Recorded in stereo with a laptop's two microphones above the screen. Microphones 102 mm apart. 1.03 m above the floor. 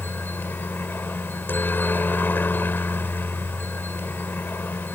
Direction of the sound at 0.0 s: 20° left (ahead or behind).